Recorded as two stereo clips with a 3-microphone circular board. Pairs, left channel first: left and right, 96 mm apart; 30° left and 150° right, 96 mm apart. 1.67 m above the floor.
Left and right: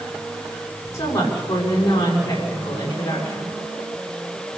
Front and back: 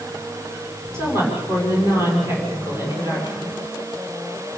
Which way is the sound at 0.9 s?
145° left.